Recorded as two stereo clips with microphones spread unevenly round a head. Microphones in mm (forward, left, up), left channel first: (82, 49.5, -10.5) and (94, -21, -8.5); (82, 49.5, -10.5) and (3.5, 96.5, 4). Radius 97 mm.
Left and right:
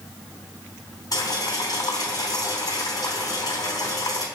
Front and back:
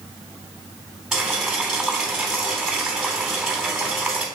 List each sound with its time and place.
1.1 s boiling: 65° left, 3 m